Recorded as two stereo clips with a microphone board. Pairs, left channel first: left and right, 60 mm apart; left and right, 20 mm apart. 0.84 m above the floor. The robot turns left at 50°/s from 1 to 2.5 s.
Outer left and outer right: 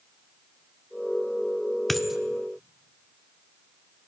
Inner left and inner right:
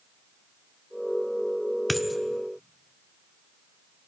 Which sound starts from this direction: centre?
A dropped coin, at 1.9 s.